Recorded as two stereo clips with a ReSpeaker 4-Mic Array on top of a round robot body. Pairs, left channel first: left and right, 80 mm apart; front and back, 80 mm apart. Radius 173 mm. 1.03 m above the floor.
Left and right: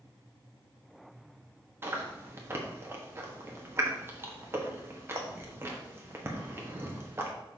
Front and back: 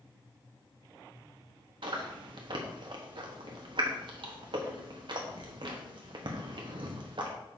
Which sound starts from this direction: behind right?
Chewing, at 1.8 s.